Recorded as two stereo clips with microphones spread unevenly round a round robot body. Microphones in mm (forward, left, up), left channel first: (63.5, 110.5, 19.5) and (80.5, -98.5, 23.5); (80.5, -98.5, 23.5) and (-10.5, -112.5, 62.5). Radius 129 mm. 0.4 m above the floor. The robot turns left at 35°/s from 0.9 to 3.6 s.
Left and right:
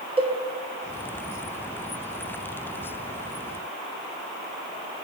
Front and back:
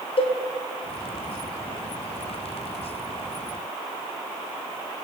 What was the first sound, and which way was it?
A cowbell, 20° right.